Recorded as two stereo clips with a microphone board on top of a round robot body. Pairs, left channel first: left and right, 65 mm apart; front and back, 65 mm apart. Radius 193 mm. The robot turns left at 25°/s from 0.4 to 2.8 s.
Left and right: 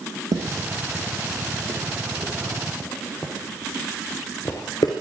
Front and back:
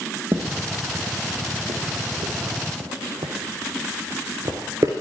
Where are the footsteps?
120° right, 2.5 m; by 4.9 s 125° left, 0.6 m.